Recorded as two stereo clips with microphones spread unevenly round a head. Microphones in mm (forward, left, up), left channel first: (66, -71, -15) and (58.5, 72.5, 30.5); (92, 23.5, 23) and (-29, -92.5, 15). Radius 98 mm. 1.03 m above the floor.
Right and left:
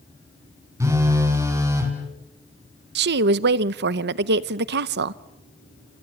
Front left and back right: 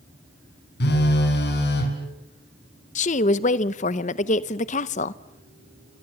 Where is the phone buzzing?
25° left, 4.5 m.